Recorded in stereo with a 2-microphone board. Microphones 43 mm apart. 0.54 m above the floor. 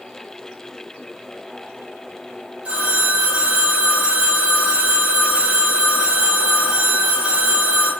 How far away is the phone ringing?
About 1.0 m.